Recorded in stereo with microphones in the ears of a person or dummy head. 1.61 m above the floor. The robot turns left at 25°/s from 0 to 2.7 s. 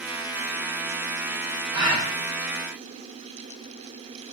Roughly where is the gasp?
Centre.